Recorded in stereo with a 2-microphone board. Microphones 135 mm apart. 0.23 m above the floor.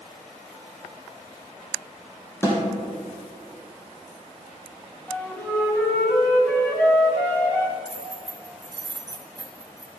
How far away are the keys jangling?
About 1.1 m.